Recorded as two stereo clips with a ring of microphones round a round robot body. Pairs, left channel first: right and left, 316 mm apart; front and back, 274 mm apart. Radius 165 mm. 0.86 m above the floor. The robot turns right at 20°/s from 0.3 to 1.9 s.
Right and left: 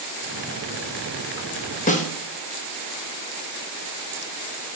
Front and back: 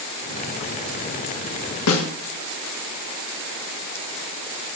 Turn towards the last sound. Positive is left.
turn(degrees=-25)